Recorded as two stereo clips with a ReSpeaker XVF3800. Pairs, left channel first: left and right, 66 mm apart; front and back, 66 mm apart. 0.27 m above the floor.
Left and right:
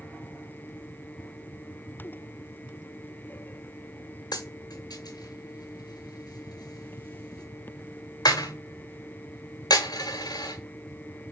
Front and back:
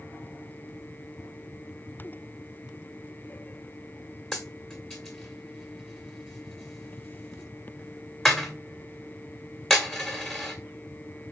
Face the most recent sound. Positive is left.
turn(degrees=85)